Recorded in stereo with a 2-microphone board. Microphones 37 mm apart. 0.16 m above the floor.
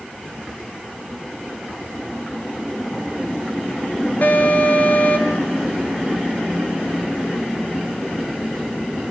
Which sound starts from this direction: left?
An alarm, at 4.2 s.